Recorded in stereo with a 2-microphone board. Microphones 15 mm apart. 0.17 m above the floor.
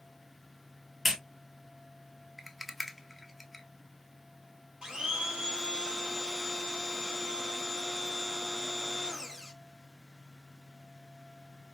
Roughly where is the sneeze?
No sneeze in this recording.